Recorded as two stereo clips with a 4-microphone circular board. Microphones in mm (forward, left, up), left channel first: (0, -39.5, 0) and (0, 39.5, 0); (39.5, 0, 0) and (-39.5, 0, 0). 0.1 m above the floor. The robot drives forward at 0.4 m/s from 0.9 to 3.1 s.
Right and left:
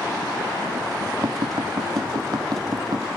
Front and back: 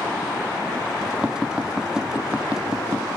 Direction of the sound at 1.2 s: 100° left.